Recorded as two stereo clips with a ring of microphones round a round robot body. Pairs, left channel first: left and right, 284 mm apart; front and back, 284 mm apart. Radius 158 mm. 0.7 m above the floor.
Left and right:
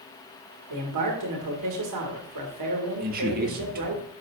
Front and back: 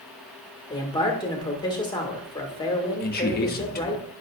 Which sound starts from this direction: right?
A man speaking, at 0.7 s.